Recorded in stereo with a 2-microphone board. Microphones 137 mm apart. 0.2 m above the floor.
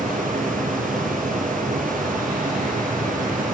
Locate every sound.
0.0 s running water: 75° right (ahead or behind), 2 m